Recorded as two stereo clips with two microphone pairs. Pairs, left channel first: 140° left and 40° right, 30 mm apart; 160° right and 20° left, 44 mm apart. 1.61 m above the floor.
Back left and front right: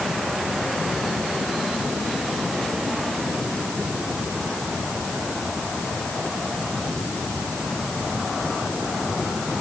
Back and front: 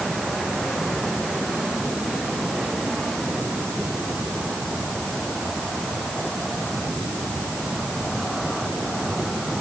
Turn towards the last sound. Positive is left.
No sound to turn to.